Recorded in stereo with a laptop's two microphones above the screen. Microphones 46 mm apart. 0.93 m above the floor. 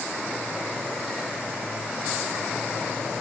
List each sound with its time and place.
Only background noise.